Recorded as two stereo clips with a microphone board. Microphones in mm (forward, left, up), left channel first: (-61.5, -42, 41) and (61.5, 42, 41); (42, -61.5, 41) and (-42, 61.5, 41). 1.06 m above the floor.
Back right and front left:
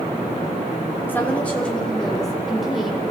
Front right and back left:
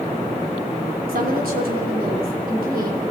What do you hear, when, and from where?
1.1 s a woman speaking: 140° left, 3.5 m; by 3.1 s 120° left, 4.5 m